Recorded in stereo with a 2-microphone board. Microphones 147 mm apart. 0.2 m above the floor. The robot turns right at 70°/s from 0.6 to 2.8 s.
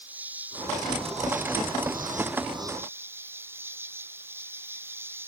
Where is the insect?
170° right; by 5.3 s 15° right.